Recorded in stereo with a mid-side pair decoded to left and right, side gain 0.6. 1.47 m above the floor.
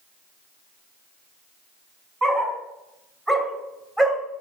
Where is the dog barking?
25° right, 5 m; by 4.2 s 15° right, 3.5 m.